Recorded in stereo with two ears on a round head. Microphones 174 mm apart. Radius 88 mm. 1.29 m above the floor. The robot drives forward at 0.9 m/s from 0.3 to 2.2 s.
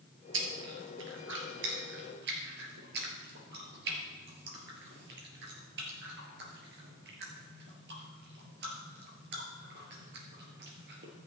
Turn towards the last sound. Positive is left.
turn(degrees=-65)  # may be behind; listen again after turning